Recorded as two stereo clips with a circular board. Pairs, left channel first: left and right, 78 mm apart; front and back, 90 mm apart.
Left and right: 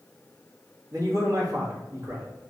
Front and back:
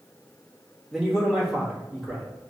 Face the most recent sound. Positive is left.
turn(degrees=-95)